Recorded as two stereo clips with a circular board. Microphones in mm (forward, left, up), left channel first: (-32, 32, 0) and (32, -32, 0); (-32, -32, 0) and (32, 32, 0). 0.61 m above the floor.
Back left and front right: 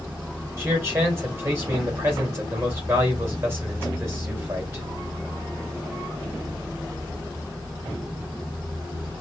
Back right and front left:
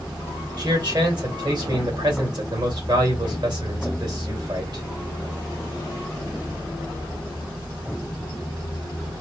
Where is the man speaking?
15° left, 2.5 m.